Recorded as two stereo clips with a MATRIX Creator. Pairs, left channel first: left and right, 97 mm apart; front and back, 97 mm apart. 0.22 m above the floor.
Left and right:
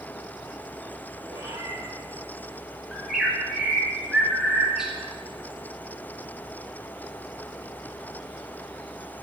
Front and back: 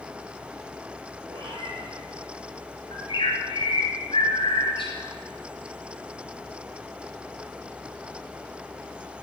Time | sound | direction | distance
1.3 | a cat meowing | 145° right | 3 m
2.9 | a bird | 5° right | 2.5 m